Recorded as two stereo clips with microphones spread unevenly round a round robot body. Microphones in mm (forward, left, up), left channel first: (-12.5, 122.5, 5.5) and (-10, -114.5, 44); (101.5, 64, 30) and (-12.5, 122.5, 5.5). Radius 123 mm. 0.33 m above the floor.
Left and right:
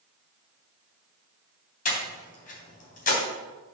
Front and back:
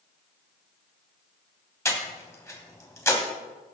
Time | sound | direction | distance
1.9 | breathing | 45° left | 3 m